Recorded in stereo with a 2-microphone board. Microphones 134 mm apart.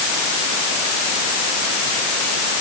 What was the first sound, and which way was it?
Only background noise.